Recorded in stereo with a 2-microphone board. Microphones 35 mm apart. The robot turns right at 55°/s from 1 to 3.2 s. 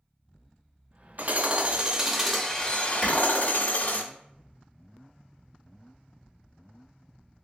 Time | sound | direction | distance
1.2 | hammering | 60° right | 0.5 m
3.0 | a clap | 20° left (ahead or behind) | 1.5 m